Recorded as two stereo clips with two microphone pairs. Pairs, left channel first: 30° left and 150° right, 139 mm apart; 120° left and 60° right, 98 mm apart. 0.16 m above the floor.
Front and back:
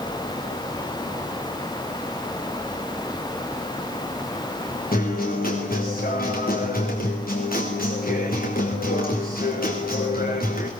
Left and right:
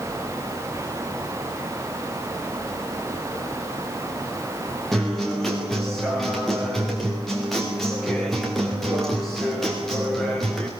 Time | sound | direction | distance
4.9 | a guitar | 35° left | 5.5 m